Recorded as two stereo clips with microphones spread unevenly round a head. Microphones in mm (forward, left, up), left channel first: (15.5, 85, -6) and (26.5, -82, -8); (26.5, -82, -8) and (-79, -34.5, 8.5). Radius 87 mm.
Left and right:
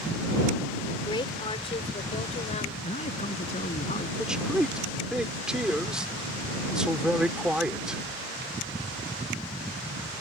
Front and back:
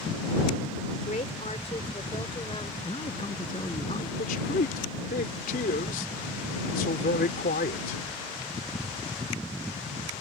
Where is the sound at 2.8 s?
40° left.